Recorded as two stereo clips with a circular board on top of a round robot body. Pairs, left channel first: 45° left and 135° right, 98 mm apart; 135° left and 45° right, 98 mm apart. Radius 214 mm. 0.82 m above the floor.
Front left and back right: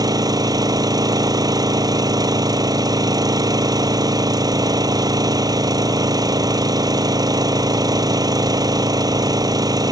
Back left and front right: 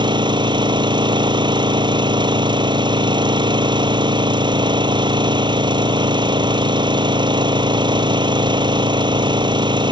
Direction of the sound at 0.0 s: 85° right.